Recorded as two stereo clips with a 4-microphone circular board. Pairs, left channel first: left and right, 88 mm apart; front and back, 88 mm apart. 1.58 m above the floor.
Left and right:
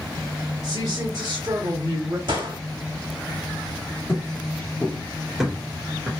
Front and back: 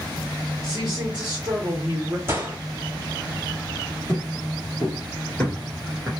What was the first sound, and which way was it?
A woman speaking, 135° right.